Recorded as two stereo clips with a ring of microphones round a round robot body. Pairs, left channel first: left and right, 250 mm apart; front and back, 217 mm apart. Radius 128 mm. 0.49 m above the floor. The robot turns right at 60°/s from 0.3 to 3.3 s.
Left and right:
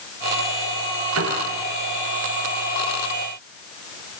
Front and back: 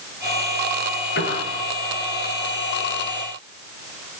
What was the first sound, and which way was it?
A piano, 55° right.